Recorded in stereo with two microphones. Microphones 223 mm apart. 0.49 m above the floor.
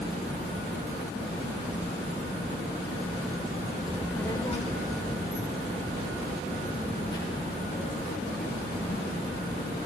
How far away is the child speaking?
About 0.7 m.